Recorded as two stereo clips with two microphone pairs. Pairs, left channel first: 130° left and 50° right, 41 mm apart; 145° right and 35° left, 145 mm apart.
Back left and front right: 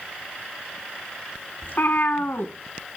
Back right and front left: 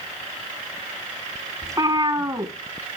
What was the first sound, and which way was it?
A cat meowing, 105° left.